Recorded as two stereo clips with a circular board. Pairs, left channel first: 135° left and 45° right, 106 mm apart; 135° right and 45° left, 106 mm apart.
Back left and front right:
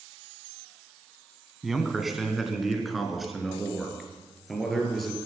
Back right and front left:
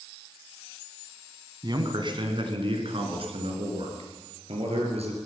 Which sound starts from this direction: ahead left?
A man speaking, at 1.6 s.